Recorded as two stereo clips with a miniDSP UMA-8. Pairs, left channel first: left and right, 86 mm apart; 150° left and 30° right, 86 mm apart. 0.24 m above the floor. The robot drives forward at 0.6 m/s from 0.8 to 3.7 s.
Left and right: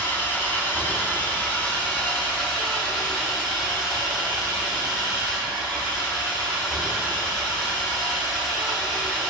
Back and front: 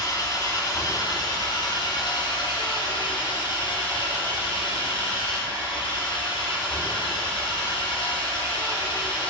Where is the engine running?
150° left, 1.5 m; by 9.3 s 170° left, 3 m.